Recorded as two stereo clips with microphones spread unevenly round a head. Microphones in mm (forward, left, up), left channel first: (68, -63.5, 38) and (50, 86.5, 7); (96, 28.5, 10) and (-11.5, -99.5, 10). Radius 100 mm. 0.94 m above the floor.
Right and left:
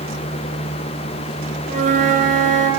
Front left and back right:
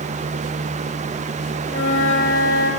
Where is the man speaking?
No man speaking in this recording.